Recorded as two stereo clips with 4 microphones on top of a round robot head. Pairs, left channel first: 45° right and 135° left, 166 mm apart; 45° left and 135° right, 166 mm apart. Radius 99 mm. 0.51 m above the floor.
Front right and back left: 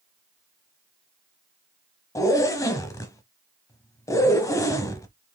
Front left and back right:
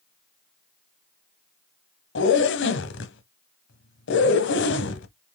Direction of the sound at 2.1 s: 30° left.